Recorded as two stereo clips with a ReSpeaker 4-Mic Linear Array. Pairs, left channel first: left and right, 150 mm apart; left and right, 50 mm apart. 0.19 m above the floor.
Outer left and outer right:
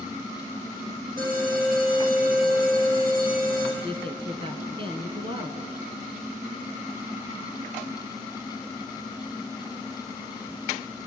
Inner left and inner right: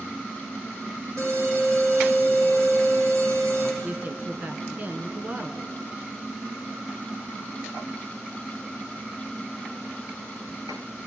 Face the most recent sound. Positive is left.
turn(degrees=-35)  # may be behind; listen again after turning